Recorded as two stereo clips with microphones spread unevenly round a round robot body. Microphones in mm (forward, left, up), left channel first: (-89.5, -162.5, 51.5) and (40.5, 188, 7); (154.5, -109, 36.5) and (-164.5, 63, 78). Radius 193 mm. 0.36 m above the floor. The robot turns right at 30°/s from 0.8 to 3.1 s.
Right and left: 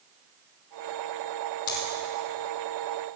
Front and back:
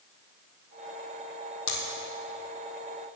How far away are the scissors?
About 4 m.